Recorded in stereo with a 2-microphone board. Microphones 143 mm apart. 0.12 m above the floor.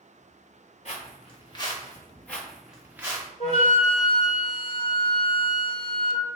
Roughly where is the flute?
Left.